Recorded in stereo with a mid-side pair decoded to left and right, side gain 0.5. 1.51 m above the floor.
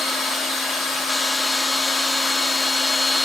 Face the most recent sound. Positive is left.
turn(degrees=35)